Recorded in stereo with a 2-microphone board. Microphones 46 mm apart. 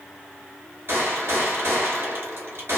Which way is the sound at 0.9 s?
70° right (ahead or behind).